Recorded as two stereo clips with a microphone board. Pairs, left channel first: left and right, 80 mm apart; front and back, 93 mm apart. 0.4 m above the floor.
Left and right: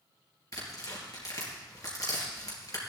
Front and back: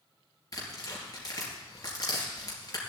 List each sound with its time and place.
0.5 s tearing paper: 45° left, 4 m